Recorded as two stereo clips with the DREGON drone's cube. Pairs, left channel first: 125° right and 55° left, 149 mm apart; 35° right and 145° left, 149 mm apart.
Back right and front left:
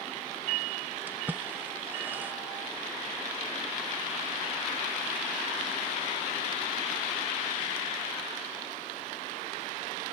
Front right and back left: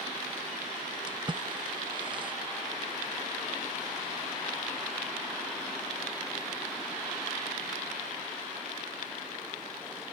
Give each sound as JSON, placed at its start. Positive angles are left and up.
{"t": 1.1, "sound": "a splash", "azimuth_deg": 125}